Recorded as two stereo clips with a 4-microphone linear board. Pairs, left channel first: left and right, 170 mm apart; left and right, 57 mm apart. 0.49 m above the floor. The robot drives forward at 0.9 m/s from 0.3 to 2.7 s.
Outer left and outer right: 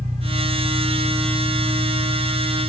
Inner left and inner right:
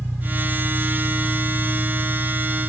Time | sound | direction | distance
0.0 | an engine running | 40° right (ahead or behind) | 2.0 m